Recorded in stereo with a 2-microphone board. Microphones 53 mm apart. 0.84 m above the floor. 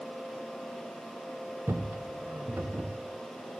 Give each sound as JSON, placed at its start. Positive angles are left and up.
{"t": 1.7, "sound": "footsteps", "side_deg": -55, "distance_m": 1.5}